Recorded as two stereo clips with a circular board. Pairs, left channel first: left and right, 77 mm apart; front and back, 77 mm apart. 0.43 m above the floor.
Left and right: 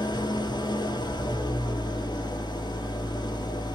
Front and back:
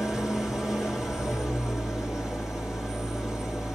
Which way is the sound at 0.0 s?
95° left.